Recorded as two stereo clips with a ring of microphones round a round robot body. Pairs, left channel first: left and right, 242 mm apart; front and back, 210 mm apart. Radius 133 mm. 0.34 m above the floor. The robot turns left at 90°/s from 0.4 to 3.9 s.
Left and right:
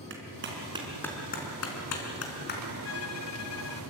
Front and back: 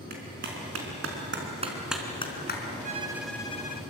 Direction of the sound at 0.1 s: 130° right.